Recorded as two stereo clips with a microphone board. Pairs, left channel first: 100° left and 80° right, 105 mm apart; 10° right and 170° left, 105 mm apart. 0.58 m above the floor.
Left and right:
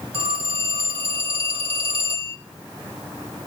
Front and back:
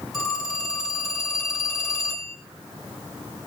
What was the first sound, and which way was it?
A phone ringing, 100° right.